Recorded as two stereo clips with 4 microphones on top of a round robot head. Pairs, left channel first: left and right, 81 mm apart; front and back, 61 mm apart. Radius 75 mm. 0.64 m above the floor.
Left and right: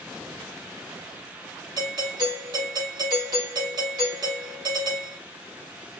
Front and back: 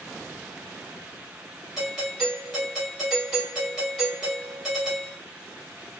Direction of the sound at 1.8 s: 95° right.